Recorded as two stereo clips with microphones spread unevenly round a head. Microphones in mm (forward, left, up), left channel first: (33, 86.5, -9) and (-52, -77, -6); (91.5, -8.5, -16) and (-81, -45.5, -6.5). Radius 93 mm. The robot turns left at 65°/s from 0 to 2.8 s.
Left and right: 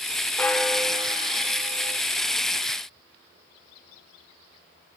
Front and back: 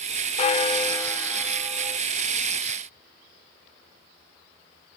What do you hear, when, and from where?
0.4 s a bell: 10° right, 1.3 m; by 2.0 s 115° right, 1.3 m